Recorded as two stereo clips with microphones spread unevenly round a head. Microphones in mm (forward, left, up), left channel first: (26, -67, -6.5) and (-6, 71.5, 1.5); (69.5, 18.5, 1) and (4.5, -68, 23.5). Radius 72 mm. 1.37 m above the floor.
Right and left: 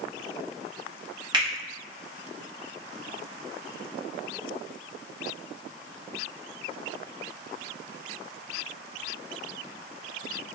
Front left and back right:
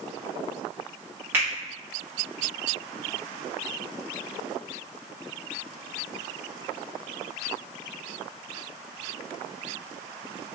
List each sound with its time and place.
1.3 s a finger snap: 160° left, 0.9 m